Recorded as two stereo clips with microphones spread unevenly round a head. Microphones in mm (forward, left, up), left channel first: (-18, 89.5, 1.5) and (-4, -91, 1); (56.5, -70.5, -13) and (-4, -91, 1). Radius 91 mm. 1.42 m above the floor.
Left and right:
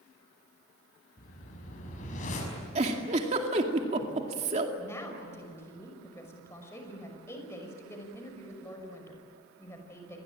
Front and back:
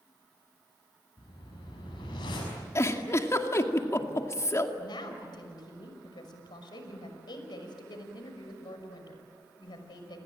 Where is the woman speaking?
15° left, 5.5 m.